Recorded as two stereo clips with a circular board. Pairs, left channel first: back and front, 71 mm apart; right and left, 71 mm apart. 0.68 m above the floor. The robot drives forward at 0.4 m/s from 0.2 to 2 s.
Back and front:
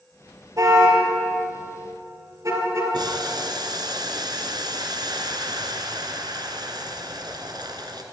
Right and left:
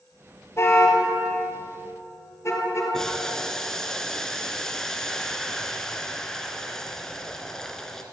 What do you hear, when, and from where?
0.6 s a car horn: 35° right, 6 m; by 2.8 s 40° right, 5.5 m
2.9 s boiling: 5° right, 2 m